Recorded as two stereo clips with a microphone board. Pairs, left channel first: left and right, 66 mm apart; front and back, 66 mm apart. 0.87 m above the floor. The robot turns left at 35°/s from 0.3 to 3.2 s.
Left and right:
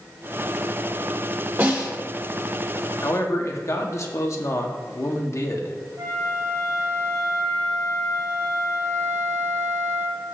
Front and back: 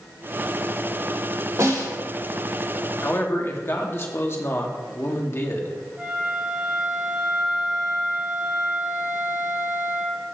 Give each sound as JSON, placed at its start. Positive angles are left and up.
{"t": 1.6, "sound": "a snare drum", "azimuth_deg": -135, "distance_m": 3.0}
{"t": 3.0, "sound": "a man speaking", "azimuth_deg": 55, "distance_m": 1.2}
{"t": 6.0, "sound": "a flute", "azimuth_deg": -105, "distance_m": 3.5}